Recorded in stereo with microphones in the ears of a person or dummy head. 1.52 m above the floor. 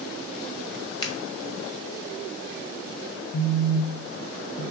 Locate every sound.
1.0 s a finger snap: 25° left (ahead or behind), 1.5 m
3.3 s a phone buzzing: 60° left (ahead or behind), 1.1 m